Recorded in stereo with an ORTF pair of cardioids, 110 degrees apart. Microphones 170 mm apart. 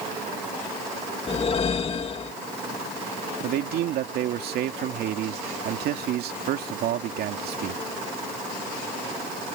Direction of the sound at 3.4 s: 70° right.